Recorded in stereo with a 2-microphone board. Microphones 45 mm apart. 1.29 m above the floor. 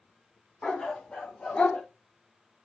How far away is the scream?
I don't hear a scream.